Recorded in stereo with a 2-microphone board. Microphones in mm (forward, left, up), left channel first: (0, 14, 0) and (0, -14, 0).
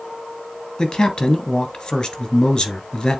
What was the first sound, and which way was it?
A man speaking, 25° left (ahead or behind).